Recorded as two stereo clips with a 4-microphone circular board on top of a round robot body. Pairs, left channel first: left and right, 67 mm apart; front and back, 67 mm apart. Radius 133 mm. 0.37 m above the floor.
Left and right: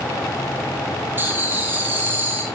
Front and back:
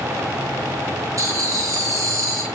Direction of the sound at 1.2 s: 145° right.